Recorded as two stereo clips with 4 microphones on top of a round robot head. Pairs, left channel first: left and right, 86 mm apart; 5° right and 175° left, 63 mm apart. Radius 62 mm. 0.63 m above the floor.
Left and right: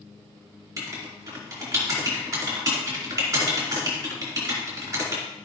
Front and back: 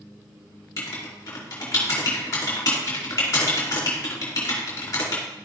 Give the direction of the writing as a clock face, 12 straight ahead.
1 o'clock.